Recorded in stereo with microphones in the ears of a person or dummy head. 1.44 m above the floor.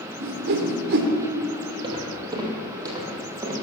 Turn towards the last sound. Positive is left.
turn(degrees=-20)  # may be behind; listen again after turning